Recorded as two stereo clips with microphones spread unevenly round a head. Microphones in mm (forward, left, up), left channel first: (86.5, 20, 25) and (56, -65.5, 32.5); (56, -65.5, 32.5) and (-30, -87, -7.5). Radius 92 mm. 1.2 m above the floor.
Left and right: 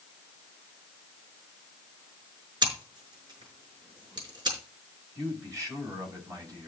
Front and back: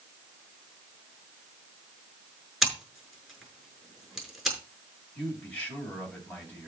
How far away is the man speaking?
About 7.5 m.